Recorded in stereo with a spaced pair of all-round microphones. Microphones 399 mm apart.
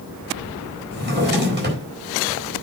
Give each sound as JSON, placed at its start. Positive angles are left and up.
{"t": 0.9, "sound": "a drawer", "side_deg": -25, "distance_m": 4.0}